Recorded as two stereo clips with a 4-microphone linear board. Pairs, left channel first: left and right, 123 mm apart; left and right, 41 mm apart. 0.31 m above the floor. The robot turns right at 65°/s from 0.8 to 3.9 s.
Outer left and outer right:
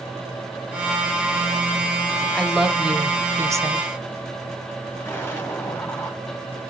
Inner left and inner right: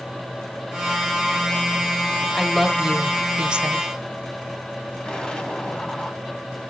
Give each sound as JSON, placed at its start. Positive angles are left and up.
{"t": 2.4, "sound": "a woman speaking", "side_deg": 5, "distance_m": 1.0}
{"t": 5.0, "sound": "an explosion", "side_deg": 15, "distance_m": 2.0}